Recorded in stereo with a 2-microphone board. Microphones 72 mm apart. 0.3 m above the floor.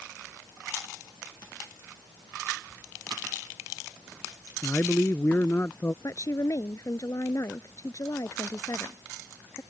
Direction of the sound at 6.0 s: 50° left (ahead or behind).